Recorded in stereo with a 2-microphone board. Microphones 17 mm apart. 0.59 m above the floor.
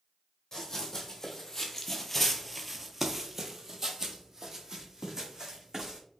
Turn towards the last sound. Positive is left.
turn(degrees=-30)  # may be behind; listen again after turning